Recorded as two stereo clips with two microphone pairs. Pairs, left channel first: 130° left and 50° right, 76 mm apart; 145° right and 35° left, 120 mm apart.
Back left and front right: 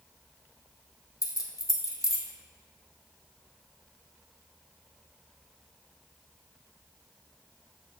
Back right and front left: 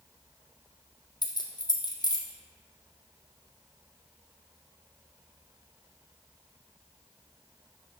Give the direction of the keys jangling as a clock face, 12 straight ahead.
6 o'clock.